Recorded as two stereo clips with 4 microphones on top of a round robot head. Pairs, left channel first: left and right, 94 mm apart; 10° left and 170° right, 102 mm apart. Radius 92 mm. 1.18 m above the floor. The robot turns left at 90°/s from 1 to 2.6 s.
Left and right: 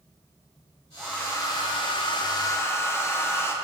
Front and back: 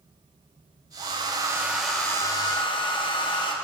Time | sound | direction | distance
1.0 | a hair dryer | 175° left | 0.9 m